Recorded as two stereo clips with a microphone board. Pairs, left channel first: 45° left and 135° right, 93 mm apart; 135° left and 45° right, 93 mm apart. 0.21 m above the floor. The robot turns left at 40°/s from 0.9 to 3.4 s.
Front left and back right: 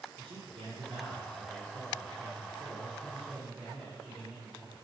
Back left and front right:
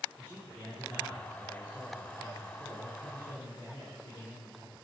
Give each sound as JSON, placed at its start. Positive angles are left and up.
{"t": 0.2, "sound": "a man speaking", "azimuth_deg": -135, "distance_m": 3.5}